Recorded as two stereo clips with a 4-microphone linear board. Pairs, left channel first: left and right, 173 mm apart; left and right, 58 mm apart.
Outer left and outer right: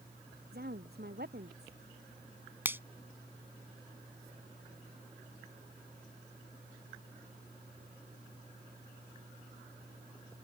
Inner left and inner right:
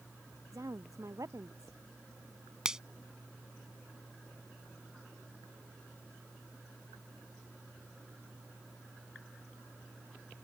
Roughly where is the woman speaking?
Right.